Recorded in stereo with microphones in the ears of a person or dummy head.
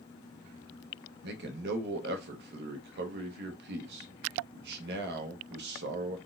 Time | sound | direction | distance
1.2 | a man speaking | 60° right (ahead or behind) | 0.8 m